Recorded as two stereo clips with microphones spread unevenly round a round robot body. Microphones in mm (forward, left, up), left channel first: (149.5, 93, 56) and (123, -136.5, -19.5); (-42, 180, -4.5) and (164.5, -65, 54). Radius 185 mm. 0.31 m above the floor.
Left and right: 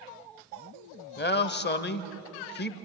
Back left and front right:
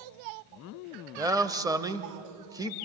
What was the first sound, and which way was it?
A man speaking, 35° left.